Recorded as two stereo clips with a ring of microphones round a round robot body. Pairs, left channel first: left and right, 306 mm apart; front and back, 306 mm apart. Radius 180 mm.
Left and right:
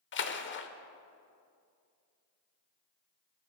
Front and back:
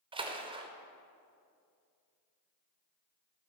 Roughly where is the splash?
Behind left.